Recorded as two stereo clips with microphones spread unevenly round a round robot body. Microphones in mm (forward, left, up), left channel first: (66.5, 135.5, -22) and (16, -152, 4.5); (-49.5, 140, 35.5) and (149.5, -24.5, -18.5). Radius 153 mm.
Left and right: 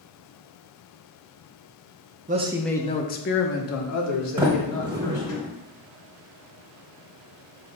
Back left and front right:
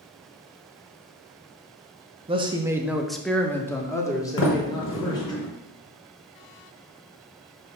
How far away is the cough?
I don't hear a cough.